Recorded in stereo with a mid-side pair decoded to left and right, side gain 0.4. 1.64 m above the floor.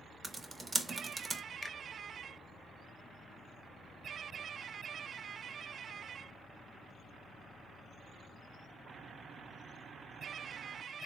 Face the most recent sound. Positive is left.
turn(degrees=25)